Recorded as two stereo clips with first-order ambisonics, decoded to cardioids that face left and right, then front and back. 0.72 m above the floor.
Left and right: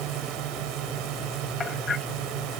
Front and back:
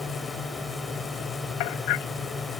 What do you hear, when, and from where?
0.0 s a drone: 85° right
1.6 s hammering: 20° left